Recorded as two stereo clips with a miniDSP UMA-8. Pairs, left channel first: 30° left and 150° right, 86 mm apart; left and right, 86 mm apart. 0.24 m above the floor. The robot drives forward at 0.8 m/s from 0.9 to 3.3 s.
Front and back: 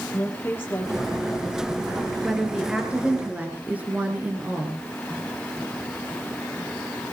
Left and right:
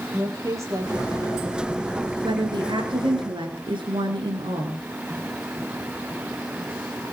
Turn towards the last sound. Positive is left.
turn(degrees=-80)